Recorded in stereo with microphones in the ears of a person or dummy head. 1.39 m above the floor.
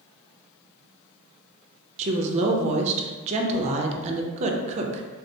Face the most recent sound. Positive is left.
turn(degrees=-35)  # may be behind; listen again after turning